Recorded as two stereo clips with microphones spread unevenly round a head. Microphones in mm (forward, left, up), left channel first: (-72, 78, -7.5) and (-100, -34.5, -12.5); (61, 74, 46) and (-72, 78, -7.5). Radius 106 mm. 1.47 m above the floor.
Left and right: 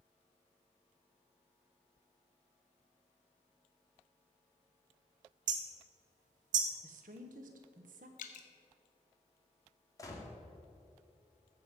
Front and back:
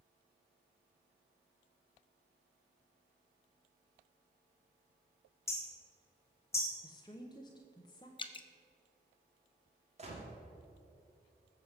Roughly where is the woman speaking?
Right.